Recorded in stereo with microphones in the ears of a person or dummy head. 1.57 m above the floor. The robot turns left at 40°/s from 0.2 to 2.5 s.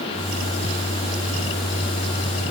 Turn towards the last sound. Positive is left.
No sound to turn to.